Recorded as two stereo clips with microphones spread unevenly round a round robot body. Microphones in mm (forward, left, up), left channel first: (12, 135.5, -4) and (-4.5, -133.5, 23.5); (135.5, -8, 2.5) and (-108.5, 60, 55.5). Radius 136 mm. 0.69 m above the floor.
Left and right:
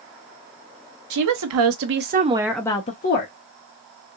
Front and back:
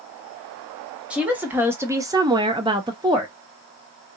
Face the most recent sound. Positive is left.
turn(degrees=80)